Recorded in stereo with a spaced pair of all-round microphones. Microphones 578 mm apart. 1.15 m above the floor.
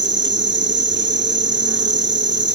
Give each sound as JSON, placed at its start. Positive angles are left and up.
{"t": 0.0, "sound": "an insect", "side_deg": -20, "distance_m": 1.1}